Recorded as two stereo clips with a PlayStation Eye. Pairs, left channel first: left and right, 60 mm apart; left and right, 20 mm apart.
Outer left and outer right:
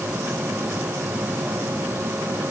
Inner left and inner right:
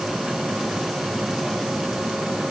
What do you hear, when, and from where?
Only background noise.